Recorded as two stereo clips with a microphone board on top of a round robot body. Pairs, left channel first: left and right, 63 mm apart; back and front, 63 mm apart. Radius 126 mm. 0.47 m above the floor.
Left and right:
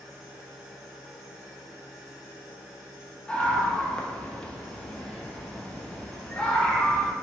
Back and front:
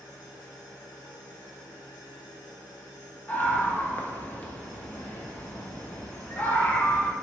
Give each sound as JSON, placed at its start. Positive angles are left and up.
{"t": 0.0, "sound": "an engine running", "azimuth_deg": -170, "distance_m": 0.9}
{"t": 3.3, "sound": "a scream", "azimuth_deg": 150, "distance_m": 0.8}